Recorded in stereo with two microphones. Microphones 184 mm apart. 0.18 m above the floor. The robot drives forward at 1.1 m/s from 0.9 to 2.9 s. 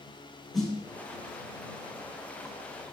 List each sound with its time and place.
0.5 s a snare drum: centre (ahead or behind), 2.5 m